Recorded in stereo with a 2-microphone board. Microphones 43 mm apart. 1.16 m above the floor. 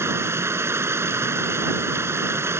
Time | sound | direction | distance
0.0 | running water | 90° right | ?